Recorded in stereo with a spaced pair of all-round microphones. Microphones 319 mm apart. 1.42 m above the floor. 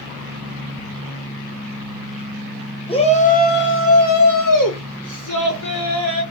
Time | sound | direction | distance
2.9 | a shout | 15° left (ahead or behind) | 0.9 m